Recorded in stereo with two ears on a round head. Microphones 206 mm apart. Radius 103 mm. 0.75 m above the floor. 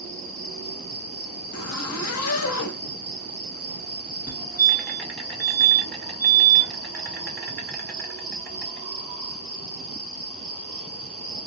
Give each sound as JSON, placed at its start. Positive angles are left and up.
{"t": 0.0, "sound": "an insect", "side_deg": 5, "distance_m": 1.5}
{"t": 1.5, "sound": "a zipper", "side_deg": 65, "distance_m": 0.6}
{"t": 4.3, "sound": "a fire alarm", "side_deg": -5, "distance_m": 1.6}